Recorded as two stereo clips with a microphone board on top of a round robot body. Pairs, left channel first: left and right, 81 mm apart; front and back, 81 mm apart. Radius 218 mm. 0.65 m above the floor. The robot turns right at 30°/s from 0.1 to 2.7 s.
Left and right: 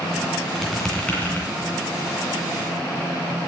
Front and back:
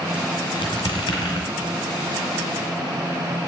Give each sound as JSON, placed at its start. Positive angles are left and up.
{"t": 0.6, "sound": "a squeak", "azimuth_deg": 0, "distance_m": 2.5}